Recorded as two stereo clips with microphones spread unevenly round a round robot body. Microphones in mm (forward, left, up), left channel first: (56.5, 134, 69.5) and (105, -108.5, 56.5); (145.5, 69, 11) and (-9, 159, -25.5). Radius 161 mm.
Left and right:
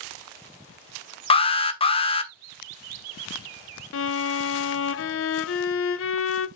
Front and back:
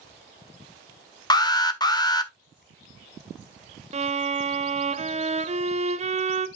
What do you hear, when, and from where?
1.3 s an alarm: 40° left, 1.4 m
3.9 s a violin: 120° left, 1.0 m